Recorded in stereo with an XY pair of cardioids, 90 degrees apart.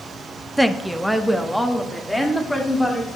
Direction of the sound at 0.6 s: 10° right.